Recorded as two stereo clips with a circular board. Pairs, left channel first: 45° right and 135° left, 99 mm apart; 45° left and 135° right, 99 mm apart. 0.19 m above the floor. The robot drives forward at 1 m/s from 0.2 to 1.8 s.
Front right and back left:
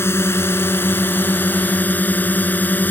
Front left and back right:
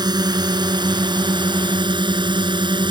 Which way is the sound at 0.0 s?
105° right.